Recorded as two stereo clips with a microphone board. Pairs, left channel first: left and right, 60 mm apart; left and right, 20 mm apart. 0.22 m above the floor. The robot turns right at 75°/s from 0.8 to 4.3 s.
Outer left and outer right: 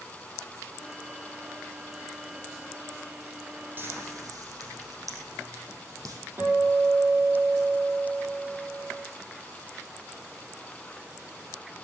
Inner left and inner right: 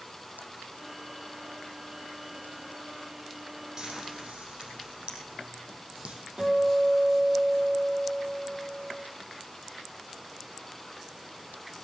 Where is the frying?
35° right (ahead or behind), 4 m; by 6.2 s 75° right (ahead or behind), 4 m.